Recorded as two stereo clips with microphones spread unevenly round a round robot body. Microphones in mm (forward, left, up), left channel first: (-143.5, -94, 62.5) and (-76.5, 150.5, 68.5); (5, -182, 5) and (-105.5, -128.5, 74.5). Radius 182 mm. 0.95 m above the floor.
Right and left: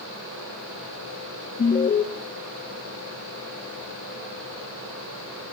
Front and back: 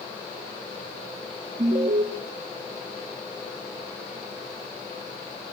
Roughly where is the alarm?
Behind.